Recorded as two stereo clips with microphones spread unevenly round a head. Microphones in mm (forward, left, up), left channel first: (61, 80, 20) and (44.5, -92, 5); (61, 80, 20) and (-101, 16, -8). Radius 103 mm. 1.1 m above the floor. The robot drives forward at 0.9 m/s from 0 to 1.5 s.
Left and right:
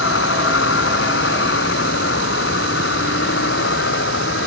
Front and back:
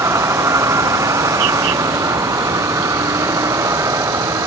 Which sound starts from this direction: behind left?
A vehicle, at 0.0 s.